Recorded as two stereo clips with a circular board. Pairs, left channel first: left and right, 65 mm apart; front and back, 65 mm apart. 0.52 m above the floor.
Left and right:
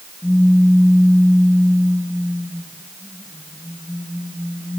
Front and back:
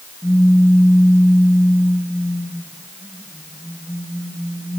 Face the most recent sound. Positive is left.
turn(degrees=55)